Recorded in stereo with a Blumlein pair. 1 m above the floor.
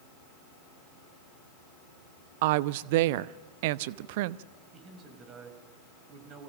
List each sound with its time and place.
2.4 s a woman speaking: 50° right, 0.8 m
4.7 s a man speaking: 30° right, 5.5 m